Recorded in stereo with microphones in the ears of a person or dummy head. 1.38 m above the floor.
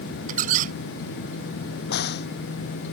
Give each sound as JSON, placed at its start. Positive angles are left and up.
{"t": 0.3, "sound": "a squeak", "side_deg": -40}
{"t": 1.9, "sound": "a crack", "side_deg": 60}